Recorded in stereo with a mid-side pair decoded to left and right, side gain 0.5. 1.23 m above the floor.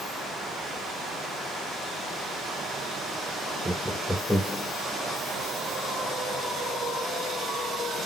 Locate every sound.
3.6 s laughter: 15° right, 0.6 m; by 4.7 s 10° left, 1.5 m